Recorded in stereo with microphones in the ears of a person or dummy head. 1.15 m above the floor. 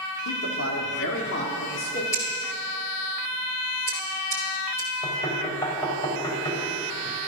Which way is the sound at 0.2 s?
70° left (ahead or behind).